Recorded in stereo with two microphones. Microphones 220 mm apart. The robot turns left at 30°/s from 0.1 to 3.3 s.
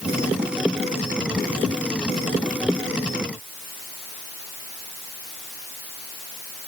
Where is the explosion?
No explosion in this recording.